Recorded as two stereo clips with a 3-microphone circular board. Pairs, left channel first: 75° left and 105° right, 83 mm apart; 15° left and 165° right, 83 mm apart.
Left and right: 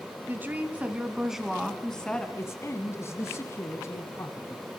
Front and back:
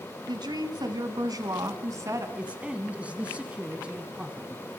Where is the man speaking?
120° left, 1.7 m.